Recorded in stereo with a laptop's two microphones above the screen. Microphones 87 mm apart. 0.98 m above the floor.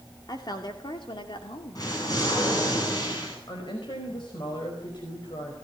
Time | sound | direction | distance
0.3 | a woman speaking | 50° left (ahead or behind) | 2.0 m
1.8 | an explosion | 45° left (ahead or behind) | 9 m
3.5 | a woman speaking | 60° left (ahead or behind) | 5 m